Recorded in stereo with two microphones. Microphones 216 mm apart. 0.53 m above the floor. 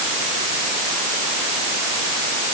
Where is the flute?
No flute in this recording.